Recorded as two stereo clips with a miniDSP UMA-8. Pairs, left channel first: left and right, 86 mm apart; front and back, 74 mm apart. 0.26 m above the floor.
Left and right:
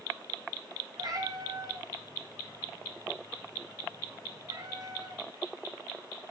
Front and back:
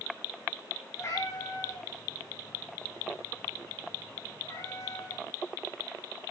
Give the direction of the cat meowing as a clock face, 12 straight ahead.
2 o'clock.